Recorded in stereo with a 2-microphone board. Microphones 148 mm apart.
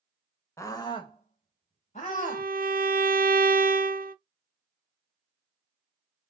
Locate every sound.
0.6 s a scream: 20° left (ahead or behind), 0.9 m; by 2.5 s 55° left (ahead or behind), 1.6 m
2.1 s a violin: 75° right (ahead or behind), 0.5 m